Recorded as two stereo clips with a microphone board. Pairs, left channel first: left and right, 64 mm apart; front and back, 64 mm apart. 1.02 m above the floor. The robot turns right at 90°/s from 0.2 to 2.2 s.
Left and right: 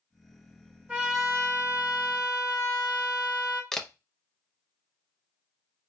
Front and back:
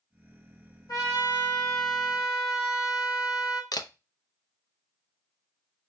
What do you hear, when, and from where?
0.9 s a trumpet: 25° right, 1.4 m; by 3.6 s 95° left, 1.4 m
3.7 s a camera shutter: 10° left, 0.5 m